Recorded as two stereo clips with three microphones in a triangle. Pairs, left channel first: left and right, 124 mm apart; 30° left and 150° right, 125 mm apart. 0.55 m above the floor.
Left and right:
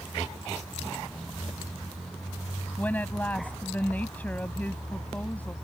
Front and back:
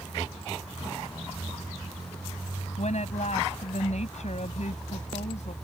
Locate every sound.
2.8 s a woman speaking: 15° left